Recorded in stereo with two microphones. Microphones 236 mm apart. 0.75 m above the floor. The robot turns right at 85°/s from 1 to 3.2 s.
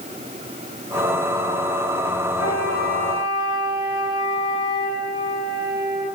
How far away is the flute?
About 5.5 m.